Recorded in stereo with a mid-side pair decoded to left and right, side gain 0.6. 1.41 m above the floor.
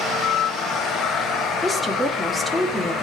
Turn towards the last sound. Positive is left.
turn(degrees=10)